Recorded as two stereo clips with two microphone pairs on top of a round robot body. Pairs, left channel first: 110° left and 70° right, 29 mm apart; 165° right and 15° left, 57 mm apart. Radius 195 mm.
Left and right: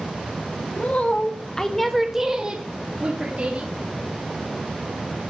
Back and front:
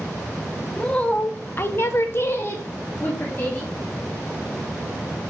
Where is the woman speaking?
125° left, 1.6 m; by 3.7 s 105° right, 2.5 m.